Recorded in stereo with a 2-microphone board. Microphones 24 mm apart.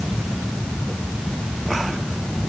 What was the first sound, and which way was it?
Only background noise.